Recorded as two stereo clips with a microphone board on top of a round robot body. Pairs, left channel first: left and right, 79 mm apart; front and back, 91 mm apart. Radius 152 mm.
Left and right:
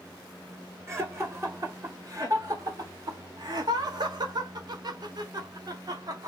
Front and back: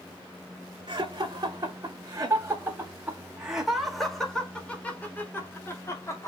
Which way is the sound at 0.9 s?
145° right.